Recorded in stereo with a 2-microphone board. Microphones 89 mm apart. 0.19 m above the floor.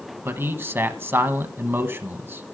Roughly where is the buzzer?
No buzzer in this recording.